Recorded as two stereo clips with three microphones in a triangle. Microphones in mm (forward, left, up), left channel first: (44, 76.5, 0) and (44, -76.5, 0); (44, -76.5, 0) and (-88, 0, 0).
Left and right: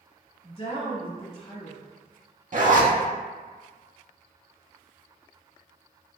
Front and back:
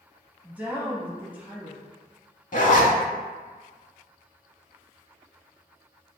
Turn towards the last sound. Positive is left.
turn(degrees=-60)